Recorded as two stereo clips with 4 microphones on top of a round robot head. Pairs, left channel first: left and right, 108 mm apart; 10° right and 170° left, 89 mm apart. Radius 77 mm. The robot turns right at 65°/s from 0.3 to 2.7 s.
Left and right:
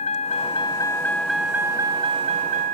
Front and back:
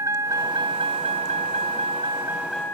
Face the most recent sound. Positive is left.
turn(degrees=-90)